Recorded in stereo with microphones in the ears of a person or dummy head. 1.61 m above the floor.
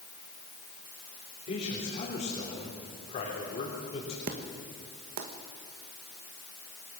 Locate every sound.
1.5 s a man speaking: 35° left (ahead or behind), 3.5 m
4.3 s an explosion: 40° right (ahead or behind), 1.3 m